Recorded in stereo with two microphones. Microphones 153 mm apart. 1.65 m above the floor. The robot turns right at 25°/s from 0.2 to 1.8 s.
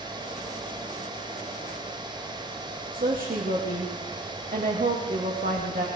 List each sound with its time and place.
2.9 s a woman speaking: 70° right (ahead or behind), 2 m